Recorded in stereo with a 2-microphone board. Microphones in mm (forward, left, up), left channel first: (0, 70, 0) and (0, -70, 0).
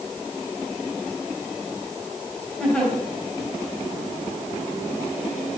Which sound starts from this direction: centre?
A giggle, at 2.6 s.